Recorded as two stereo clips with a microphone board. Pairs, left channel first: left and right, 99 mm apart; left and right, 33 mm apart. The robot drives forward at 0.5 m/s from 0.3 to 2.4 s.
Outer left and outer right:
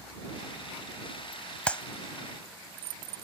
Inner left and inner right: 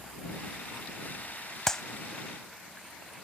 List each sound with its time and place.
1.7 s a clap: 15° left (ahead or behind)